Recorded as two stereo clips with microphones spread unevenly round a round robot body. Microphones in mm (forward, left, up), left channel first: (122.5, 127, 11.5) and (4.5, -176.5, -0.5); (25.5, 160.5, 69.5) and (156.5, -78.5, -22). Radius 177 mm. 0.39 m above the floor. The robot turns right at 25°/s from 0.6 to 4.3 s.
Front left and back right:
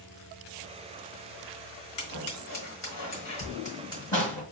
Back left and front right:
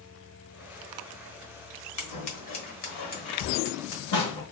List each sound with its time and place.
2.0 s scissors: 100° left, 1.5 m; by 4.4 s 155° left, 1.5 m